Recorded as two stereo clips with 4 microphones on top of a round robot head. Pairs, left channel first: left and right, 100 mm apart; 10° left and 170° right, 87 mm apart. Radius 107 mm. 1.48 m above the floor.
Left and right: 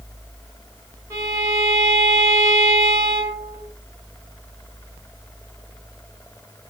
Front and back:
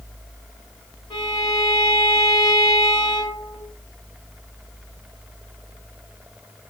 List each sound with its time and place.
1.1 s a violin: 35° right, 1.2 m